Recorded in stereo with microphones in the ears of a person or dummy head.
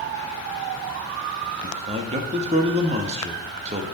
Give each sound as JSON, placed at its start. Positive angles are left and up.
{"t": 1.6, "sound": "a man speaking", "side_deg": -35, "distance_m": 1.6}